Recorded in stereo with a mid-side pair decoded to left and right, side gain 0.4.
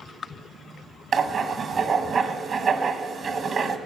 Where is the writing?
55° right, 1.3 m.